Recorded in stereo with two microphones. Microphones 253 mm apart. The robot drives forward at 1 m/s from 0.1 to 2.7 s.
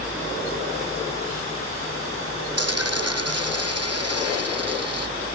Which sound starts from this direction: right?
A dropped coin, at 2.6 s.